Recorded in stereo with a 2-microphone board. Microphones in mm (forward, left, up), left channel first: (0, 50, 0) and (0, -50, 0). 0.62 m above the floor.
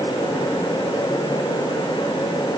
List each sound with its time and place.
Only background noise.